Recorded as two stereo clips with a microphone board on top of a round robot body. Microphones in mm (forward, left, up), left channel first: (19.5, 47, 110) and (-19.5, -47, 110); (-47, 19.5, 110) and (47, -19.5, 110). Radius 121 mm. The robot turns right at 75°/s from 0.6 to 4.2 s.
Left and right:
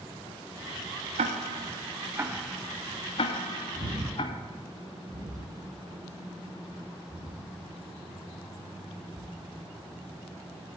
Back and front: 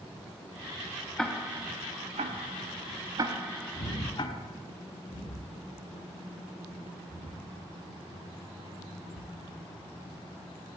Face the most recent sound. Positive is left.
turn(degrees=145)